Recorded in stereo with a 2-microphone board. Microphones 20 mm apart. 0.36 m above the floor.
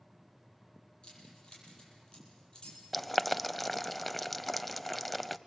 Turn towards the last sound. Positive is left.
turn(degrees=5)  # may be behind; listen again after turning